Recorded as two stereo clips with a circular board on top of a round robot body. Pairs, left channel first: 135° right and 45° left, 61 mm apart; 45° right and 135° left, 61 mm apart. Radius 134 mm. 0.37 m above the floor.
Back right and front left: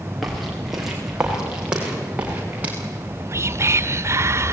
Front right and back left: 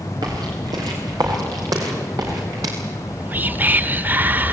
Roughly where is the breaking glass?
No breaking glass in this recording.